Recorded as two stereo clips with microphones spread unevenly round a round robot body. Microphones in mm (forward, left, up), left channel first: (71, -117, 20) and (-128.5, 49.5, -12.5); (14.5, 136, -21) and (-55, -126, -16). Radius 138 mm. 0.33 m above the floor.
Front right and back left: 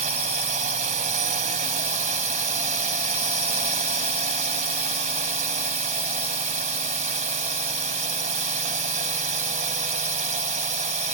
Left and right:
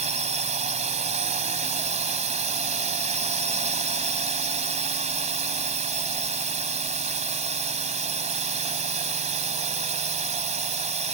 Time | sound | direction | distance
0.0 | a drone | 165° right | ?